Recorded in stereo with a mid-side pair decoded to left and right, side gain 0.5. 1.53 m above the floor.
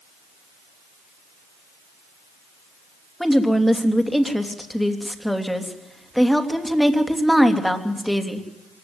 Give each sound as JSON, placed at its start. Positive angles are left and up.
{"t": 3.2, "sound": "a woman speaking", "azimuth_deg": 5, "distance_m": 3.0}